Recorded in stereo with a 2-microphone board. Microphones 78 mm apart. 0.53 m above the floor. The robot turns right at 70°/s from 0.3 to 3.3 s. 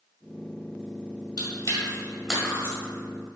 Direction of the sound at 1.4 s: 55° left (ahead or behind).